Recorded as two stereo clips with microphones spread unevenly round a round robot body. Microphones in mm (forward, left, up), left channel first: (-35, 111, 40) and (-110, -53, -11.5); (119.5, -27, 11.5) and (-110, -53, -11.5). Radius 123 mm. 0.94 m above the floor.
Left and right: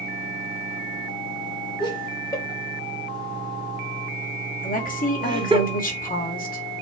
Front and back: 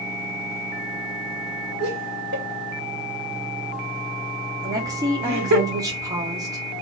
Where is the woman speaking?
110° left, 2 m.